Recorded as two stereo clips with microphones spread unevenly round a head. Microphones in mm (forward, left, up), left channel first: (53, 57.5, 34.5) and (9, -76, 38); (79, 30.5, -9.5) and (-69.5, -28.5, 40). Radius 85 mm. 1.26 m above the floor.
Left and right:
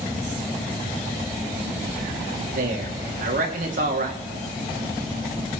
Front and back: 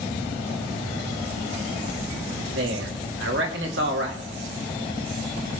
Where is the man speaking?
140° right, 2.5 m.